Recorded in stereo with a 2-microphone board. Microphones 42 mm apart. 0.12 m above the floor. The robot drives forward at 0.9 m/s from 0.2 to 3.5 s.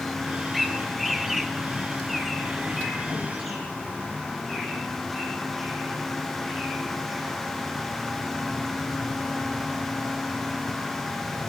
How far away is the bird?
About 1.1 m.